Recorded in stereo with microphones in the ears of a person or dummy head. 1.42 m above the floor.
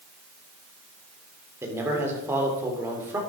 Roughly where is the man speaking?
Centre.